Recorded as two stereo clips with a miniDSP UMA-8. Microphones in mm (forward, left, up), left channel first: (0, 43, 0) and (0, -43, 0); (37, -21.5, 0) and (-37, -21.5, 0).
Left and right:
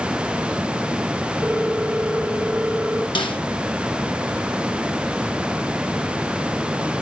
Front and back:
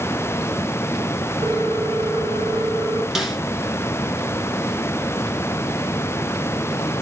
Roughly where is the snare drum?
Left.